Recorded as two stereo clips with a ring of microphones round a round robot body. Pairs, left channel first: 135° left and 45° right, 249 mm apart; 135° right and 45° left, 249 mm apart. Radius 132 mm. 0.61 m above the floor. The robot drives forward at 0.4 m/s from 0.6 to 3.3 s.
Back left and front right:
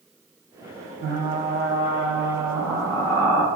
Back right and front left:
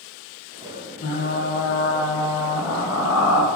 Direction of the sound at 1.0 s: 95° right.